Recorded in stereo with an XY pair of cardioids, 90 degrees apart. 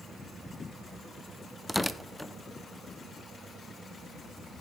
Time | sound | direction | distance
1.7 | tearing paper | 15° left | 0.5 m